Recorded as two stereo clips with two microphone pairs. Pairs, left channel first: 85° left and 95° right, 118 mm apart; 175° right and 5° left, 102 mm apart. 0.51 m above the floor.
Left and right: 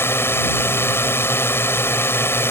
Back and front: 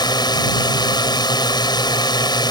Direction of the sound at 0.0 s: 150° left.